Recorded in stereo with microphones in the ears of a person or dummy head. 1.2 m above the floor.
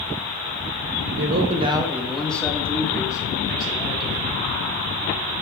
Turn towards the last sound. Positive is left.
turn(degrees=25)  # may be behind; listen again after turning